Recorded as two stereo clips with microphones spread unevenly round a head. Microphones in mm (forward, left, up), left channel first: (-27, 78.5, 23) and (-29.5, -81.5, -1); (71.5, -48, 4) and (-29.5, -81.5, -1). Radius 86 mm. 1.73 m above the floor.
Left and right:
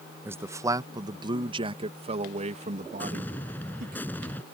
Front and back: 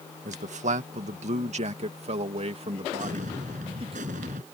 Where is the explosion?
165° left.